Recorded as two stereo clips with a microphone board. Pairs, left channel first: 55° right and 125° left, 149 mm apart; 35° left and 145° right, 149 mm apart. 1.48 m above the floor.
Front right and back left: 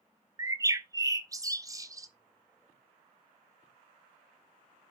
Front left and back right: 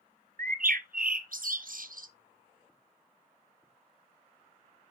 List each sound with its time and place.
0.4 s a bird: 170° right, 0.7 m